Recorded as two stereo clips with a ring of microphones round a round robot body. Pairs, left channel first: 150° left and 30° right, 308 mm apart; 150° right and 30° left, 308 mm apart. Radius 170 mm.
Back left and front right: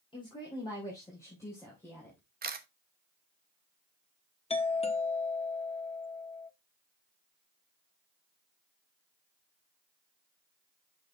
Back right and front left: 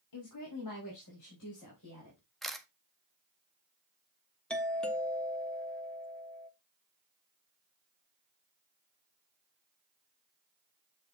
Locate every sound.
0.1 s a woman speaking: 135° right, 2.5 m; by 2.2 s 125° right, 3.5 m
2.4 s a camera shutter: 60° right, 1.1 m
4.5 s a doorbell: 130° left, 1.3 m